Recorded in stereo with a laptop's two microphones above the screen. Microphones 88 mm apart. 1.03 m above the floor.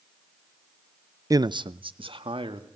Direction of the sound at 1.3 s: 40° right (ahead or behind).